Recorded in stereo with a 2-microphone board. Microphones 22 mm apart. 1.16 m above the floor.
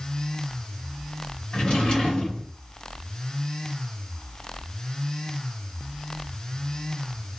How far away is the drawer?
About 2 m.